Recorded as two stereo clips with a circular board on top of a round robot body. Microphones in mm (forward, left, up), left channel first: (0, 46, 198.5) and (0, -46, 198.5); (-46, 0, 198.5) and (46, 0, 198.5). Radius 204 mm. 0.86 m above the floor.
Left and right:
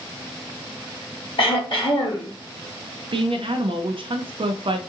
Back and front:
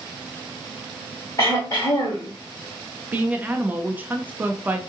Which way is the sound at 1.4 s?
125° left.